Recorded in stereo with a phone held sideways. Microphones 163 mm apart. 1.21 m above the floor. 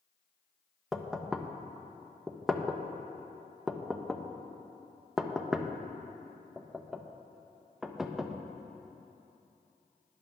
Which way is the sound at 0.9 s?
Centre (ahead or behind).